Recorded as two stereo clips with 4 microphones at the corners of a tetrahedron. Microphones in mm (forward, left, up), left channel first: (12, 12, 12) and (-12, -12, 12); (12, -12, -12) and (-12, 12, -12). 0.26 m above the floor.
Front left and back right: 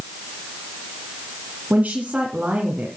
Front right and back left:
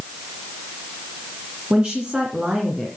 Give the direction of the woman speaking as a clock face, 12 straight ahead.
6 o'clock.